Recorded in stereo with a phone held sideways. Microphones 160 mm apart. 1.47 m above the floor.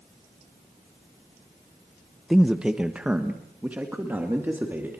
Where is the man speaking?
Centre (ahead or behind), 0.7 m; by 5.0 s 10° right (ahead or behind), 2.5 m.